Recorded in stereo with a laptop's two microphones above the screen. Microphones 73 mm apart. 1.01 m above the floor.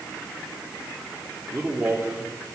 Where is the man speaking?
15° right (ahead or behind), 3 m.